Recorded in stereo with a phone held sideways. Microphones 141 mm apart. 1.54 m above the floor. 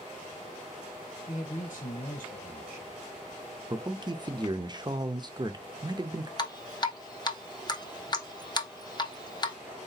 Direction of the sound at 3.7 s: 30° right (ahead or behind).